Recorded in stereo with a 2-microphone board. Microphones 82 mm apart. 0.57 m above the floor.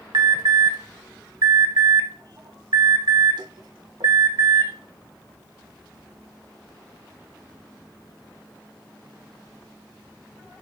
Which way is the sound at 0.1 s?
65° right (ahead or behind).